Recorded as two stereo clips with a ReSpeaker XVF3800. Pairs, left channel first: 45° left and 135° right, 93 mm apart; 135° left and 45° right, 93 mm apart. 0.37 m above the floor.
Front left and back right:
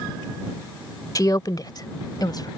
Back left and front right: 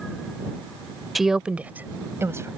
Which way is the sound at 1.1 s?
40° left.